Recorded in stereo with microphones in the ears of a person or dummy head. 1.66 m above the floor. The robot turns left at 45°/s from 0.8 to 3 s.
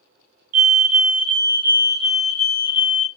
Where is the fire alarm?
125° right, 0.6 m; by 3.1 s 135° left, 0.6 m.